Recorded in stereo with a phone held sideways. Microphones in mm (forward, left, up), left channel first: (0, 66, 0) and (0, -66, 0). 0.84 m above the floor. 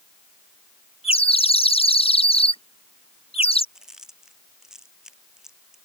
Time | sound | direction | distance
1.0 | a bird | 45° left (ahead or behind) | ?
3.8 | chewing | 5° right (ahead or behind) | ?